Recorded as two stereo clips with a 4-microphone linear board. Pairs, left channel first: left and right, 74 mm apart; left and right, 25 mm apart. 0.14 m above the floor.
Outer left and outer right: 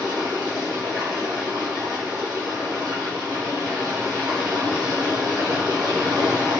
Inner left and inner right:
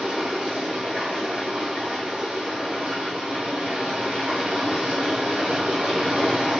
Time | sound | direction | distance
0.0 | running water | 80° right | 2.5 m